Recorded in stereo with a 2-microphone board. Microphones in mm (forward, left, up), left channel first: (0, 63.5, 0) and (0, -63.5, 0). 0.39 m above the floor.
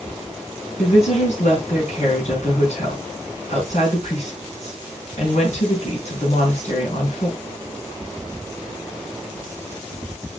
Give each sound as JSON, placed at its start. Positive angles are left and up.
{"t": 0.8, "sound": "a woman speaking", "side_deg": 65, "distance_m": 4.5}